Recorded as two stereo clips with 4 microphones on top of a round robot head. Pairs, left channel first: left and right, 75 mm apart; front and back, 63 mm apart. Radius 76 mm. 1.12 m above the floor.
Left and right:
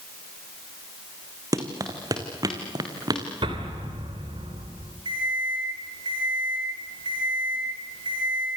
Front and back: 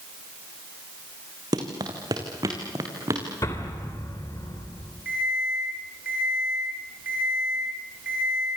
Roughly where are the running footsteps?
Behind right.